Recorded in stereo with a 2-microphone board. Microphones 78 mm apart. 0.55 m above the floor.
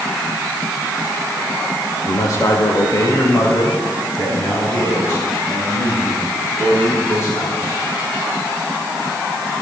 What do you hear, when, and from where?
2.1 s a man speaking: 45° left (ahead or behind), 1.6 m; by 7.8 s 40° left (ahead or behind), 10 m